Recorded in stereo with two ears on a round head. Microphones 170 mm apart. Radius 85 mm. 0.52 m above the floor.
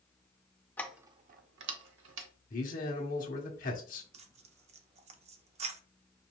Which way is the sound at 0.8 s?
10° left (ahead or behind).